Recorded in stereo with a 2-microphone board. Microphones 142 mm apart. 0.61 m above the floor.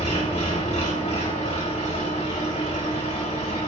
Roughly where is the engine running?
Left.